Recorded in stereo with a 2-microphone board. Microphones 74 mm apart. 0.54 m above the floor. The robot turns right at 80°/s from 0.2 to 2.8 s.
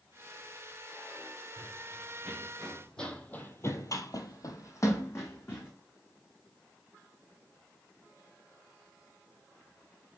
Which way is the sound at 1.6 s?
75° right (ahead or behind).